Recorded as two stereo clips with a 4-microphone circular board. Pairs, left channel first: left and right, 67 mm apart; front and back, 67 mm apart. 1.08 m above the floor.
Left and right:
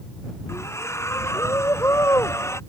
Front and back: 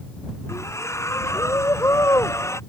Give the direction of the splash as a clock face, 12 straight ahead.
11 o'clock.